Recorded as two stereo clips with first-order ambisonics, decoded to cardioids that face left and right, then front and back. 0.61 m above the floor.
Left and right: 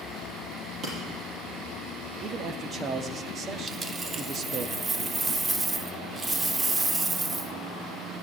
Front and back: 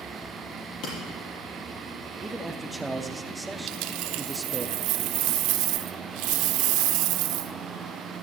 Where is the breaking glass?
35° right, 5.5 m.